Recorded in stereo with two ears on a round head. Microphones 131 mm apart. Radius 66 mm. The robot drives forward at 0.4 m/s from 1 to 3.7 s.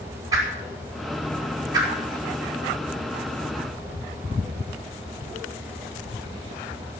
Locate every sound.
0.3 s a whoosh: 25° right (ahead or behind), 4.5 m